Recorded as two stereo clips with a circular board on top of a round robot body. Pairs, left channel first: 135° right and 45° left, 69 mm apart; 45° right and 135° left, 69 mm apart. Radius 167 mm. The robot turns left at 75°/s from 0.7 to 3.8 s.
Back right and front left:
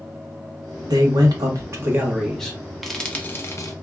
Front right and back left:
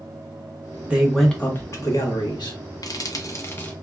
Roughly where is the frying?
Ahead right.